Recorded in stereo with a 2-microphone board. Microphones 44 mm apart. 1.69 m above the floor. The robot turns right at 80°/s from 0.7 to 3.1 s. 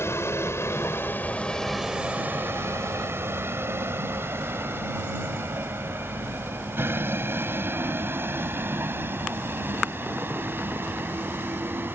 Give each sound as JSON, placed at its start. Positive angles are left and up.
{"t": 0.0, "sound": "a vehicle", "side_deg": 85}